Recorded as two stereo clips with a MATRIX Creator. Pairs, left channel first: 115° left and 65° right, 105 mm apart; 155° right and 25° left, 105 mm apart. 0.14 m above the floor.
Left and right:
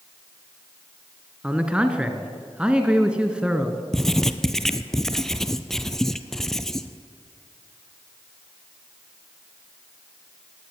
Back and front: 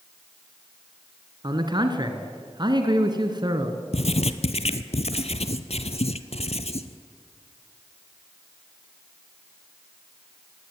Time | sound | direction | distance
1.4 | a man speaking | 10° left | 1.9 m
3.9 | writing | 160° right | 0.9 m